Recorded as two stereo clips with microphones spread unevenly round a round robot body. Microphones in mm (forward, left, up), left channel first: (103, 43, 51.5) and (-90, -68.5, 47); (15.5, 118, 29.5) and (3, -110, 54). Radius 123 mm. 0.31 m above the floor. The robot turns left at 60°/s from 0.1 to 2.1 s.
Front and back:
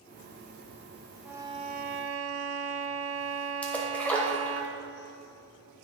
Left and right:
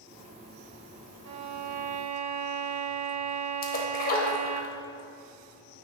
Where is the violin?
65° right, 0.5 m; by 4.6 s 115° right, 0.5 m.